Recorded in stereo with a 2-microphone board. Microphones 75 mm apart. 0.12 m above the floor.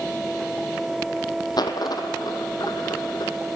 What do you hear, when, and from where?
1.6 s a dropped coin: 60° left (ahead or behind), 1.1 m